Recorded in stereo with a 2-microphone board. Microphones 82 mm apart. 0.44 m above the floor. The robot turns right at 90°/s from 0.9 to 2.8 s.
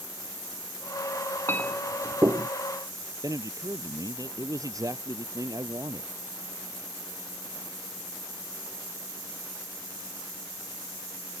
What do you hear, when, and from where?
1.5 s a clink: 30° left (ahead or behind); by 2.5 s 60° right (ahead or behind)
3.2 s a man speaking: 45° right (ahead or behind)